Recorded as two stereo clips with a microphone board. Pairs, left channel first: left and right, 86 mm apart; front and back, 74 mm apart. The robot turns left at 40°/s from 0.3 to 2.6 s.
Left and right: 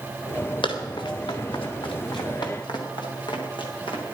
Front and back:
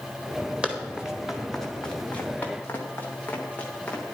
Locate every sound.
0.6 s running footsteps: 105° left, 3 m; by 4.0 s 75° left, 5 m